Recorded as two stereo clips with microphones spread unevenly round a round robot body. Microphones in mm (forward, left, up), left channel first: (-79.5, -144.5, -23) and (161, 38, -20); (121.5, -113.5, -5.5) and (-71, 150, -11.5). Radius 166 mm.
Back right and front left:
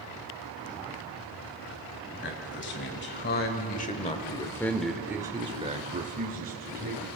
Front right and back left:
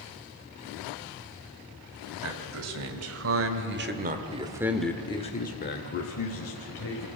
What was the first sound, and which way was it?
A man speaking, 165° left.